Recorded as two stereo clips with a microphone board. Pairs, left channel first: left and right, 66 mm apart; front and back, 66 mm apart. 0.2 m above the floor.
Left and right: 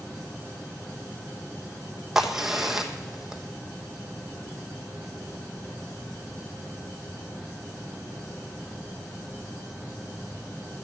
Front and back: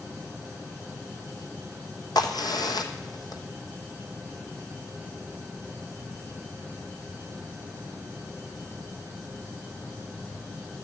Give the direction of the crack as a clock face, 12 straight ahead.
12 o'clock.